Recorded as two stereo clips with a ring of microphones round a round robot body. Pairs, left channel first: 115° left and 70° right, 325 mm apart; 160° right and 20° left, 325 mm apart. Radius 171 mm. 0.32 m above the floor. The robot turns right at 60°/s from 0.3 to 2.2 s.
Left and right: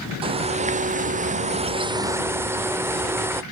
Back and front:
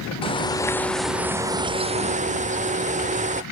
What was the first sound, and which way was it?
A bird, 110° right.